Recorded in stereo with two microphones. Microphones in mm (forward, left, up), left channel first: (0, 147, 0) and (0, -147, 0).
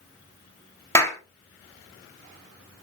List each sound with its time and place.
0.9 s a clap: 10° left (ahead or behind), 1.6 m